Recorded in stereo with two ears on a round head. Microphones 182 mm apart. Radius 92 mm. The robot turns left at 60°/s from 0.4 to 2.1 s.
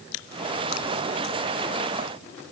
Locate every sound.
Only background noise.